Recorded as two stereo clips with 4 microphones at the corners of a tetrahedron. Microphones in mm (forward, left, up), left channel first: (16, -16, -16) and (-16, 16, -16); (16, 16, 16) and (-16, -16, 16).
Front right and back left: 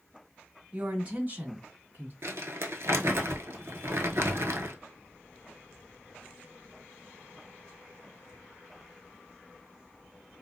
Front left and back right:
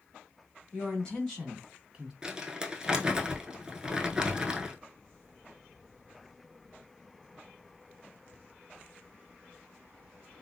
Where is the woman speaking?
85° left, 1.5 m; by 2.1 s 150° left, 1.8 m.